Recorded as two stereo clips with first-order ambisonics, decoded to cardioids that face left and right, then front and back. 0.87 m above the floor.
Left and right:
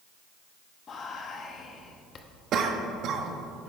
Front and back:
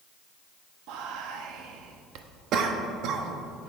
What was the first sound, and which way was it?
Whispering, 150° left.